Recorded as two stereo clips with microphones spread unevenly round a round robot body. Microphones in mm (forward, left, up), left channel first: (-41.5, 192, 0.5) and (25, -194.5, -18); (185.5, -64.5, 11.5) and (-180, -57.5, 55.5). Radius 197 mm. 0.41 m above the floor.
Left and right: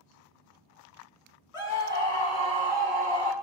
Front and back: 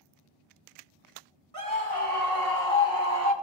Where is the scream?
55° left, 1.7 m; by 3.3 s 15° left, 2 m.